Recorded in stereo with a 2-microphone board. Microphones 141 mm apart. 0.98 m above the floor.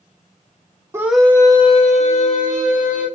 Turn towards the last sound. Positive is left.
turn(degrees=70)  # may be behind; listen again after turning